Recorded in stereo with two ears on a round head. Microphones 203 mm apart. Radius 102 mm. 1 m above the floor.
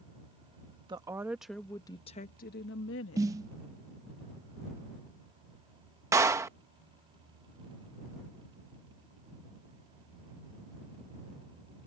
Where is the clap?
15° right (ahead or behind).